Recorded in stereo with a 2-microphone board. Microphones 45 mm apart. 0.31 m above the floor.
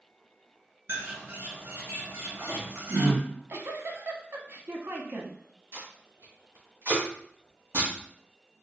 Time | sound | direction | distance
0.9 | a bird | 75° right (ahead or behind) | 1.8 m
3.2 | a giggle | 60° right (ahead or behind) | 0.6 m
5.7 | tape being pulled | 60° right (ahead or behind) | 1.9 m